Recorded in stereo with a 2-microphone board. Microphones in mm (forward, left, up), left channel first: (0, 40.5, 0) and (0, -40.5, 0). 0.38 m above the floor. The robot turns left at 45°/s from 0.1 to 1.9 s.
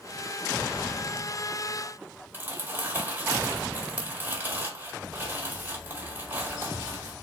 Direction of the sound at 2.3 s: 25° right (ahead or behind).